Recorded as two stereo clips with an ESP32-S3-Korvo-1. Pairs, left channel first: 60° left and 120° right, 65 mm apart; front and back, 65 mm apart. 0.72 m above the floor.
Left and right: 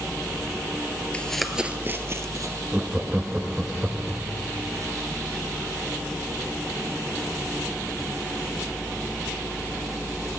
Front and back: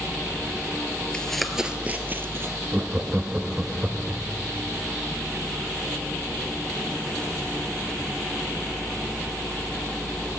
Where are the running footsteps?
45° left, 0.7 m; by 2.6 s 140° right, 1.2 m.